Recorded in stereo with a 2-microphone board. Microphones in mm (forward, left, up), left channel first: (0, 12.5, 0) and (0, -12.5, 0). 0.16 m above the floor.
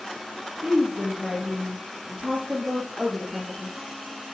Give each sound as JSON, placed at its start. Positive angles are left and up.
{"t": 0.6, "sound": "a woman speaking", "side_deg": -50, "distance_m": 3.5}